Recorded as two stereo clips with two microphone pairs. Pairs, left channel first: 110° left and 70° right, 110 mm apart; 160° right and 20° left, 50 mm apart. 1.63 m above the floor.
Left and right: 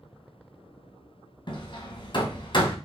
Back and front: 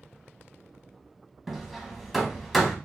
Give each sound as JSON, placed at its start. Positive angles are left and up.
{"t": 1.5, "sound": "hammering", "azimuth_deg": 115, "distance_m": 1.0}